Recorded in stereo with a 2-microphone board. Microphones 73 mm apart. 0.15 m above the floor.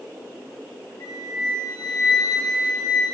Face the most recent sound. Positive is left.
turn(degrees=55)  # may be behind; listen again after turning